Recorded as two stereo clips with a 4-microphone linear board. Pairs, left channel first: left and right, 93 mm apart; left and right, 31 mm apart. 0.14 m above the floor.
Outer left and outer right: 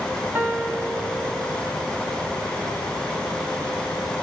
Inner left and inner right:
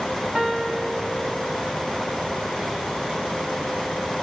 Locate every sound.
0.3 s a piano: 20° right (ahead or behind), 1.2 m